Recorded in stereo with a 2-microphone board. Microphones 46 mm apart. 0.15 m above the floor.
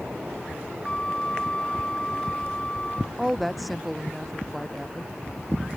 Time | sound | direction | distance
0.8 | a flute | 20° left (ahead or behind) | ?
3.2 | a woman speaking | centre (ahead or behind) | ?